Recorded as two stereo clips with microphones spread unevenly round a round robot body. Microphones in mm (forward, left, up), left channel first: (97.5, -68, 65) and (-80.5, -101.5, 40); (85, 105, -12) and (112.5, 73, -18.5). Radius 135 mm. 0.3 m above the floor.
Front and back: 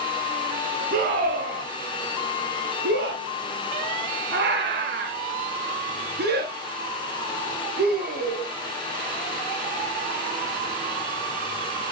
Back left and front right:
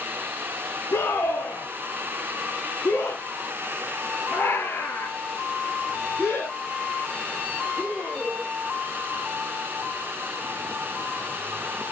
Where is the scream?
150° left, 3 m; by 8.5 s 135° right, 5.5 m.